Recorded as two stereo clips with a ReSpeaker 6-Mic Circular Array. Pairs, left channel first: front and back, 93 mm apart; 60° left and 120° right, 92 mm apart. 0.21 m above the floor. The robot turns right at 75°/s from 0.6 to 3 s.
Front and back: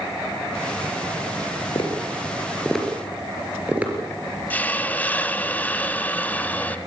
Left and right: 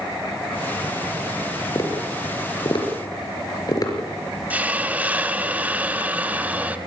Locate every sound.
1.8 s tapping: 15° left, 4.5 m; by 3.9 s 105° left, 4.5 m
4.5 s a hiss: 60° right, 1.0 m